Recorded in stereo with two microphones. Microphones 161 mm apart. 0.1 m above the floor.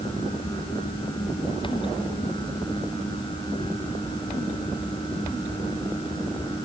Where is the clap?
I don't hear a clap.